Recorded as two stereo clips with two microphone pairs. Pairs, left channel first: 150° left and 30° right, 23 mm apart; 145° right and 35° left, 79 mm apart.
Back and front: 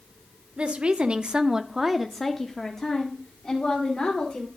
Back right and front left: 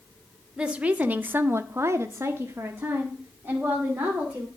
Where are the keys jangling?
No keys jangling in this recording.